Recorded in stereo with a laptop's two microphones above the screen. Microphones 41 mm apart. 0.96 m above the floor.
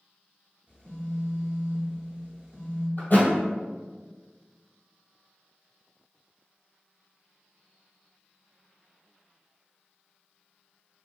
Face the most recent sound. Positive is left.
turn(degrees=50)  # may be behind; listen again after turning